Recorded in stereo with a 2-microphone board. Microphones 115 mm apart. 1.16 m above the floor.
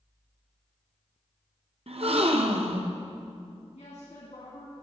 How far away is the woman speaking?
About 2 m.